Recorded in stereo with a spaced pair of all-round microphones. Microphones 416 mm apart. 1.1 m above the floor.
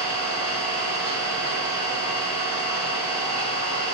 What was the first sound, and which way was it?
An engine running, 75° right (ahead or behind).